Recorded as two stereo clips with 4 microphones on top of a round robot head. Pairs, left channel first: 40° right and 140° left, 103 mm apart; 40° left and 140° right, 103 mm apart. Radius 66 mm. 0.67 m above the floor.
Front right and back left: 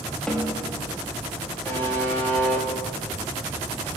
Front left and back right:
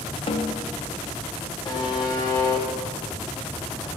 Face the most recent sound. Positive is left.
turn(degrees=20)